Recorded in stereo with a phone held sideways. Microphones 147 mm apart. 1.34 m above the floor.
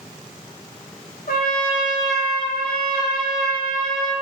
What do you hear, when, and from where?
1.3 s a trumpet: 75° left (ahead or behind), 1.6 m